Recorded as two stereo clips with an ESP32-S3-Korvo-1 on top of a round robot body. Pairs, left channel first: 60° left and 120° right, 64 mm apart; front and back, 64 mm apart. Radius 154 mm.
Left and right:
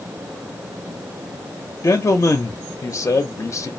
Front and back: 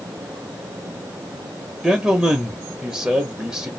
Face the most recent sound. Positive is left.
turn(degrees=100)